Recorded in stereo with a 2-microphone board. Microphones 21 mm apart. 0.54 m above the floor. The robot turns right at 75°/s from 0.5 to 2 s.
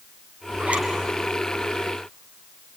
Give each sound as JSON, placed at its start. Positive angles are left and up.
{"t": 0.6, "sound": "a zipper", "side_deg": -65, "distance_m": 4.0}